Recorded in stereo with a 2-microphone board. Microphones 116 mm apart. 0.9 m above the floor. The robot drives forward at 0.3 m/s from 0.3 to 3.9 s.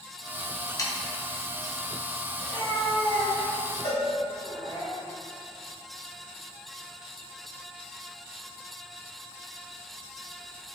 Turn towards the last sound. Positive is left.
turn(degrees=75)  # may be behind; listen again after turning